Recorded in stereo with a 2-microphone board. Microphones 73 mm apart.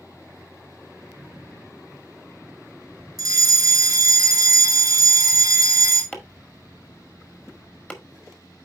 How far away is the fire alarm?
About 3.5 m.